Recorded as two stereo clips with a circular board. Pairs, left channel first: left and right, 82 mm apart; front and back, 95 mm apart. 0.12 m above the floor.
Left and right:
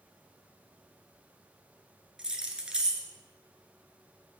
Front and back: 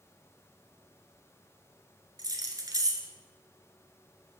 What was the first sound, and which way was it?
Keys jangling, 165° right.